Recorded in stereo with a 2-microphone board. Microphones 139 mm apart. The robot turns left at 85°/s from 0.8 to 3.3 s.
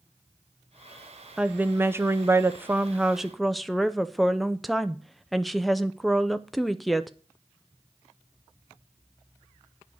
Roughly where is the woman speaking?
Centre.